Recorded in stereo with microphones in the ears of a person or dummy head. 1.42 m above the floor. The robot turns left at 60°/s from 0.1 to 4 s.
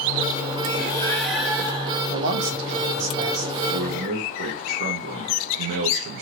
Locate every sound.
0.8 s breathing: 30° left, 1.8 m; by 2.0 s 45° right, 1.8 m
2.1 s a man speaking: 55° right, 0.7 m; by 3.5 s 140° right, 0.7 m
3.7 s a man speaking: 60° right (ahead or behind), 0.8 m; by 6.2 s 45° right (ahead or behind), 0.8 m